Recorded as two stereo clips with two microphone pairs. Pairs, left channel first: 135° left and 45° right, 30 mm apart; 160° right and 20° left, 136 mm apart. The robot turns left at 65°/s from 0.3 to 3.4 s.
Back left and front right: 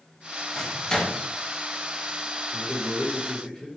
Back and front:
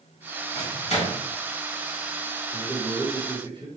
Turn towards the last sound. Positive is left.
turn(degrees=75)